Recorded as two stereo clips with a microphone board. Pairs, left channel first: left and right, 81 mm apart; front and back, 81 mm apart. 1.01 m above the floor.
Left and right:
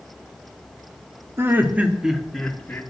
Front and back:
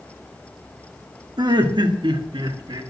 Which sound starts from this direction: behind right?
Laughter, at 1.4 s.